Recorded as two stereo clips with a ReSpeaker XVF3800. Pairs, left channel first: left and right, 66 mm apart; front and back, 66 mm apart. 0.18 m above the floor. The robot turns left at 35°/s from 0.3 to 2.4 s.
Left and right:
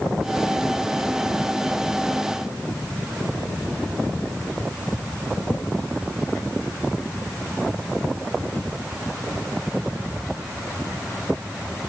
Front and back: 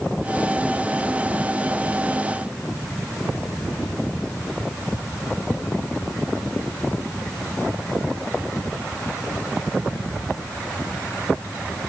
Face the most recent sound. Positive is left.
No sound to turn to.